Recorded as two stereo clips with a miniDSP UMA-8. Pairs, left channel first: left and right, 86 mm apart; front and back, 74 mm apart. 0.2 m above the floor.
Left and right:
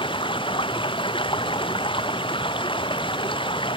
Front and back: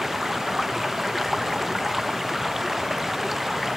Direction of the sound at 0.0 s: 95° left.